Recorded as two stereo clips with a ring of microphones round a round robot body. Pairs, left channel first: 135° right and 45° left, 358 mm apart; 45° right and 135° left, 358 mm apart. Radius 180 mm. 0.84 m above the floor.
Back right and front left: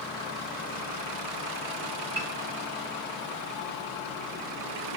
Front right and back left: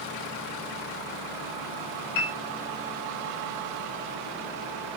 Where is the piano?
25° right, 1.3 m.